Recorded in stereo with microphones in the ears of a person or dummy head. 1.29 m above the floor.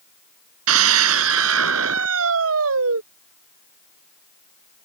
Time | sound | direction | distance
0.7 | a scream | 80° right | ?